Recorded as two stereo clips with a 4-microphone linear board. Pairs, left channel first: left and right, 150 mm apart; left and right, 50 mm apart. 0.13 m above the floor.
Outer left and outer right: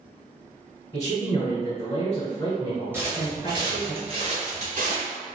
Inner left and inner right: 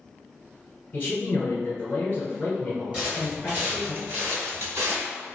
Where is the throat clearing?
No throat clearing in this recording.